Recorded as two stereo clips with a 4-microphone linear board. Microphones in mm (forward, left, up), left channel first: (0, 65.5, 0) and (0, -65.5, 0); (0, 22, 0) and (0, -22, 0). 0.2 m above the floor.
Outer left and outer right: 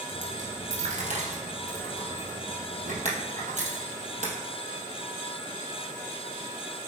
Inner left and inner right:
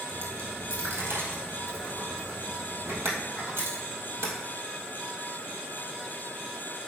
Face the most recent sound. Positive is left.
turn(degrees=-70)  # may be behind; listen again after turning